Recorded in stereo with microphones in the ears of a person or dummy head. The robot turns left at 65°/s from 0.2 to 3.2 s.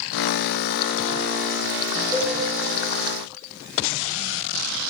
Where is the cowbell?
10° left (ahead or behind), 2 m; by 2.4 s 25° left (ahead or behind), 2 m.